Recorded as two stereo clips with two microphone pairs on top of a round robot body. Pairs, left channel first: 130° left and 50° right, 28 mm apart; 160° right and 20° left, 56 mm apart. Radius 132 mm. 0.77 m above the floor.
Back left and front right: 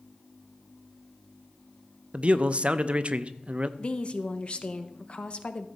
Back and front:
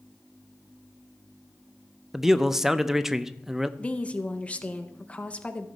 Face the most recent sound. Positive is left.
turn(degrees=145)